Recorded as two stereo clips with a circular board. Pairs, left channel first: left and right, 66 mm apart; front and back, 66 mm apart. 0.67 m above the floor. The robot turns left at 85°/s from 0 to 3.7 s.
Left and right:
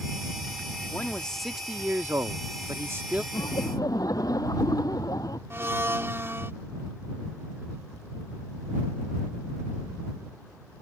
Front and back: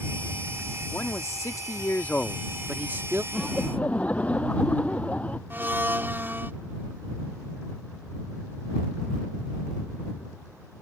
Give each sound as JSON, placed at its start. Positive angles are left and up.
{"t": 0.9, "sound": "a man speaking", "azimuth_deg": 45}
{"t": 3.3, "sound": "laughter", "azimuth_deg": 100}
{"t": 5.5, "sound": "a blender", "azimuth_deg": -130}